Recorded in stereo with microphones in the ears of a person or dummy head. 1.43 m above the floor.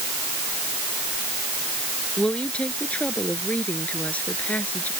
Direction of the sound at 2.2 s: 5° left (ahead or behind).